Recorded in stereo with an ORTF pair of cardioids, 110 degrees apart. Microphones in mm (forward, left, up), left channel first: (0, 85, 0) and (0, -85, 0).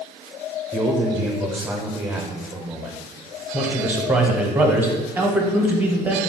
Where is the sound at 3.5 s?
10° right, 0.7 m.